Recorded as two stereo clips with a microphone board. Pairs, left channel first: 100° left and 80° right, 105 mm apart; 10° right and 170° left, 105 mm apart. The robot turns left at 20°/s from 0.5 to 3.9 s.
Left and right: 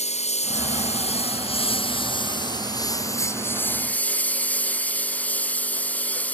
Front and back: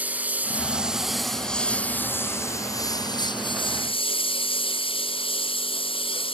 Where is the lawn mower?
90° left; by 6.4 s 25° left.